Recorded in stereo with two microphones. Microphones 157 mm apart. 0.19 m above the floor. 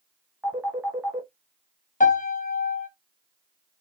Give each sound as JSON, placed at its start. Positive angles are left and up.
{"t": 0.4, "sound": "a phone ringing", "side_deg": -10, "distance_m": 1.4}
{"t": 2.0, "sound": "a piano", "side_deg": 55, "distance_m": 0.8}